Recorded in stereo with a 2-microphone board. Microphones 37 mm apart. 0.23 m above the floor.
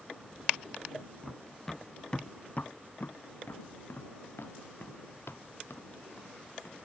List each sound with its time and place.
1.2 s running footsteps: centre (ahead or behind); by 6.8 s 75° left (ahead or behind)